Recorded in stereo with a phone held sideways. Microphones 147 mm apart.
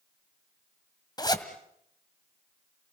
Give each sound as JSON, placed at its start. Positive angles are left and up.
{"t": 1.2, "sound": "a zipper", "side_deg": 30, "distance_m": 1.7}